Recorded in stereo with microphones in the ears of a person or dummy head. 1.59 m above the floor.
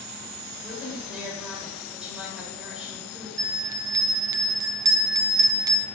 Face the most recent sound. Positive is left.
turn(degrees=-25)  # may be behind; listen again after turning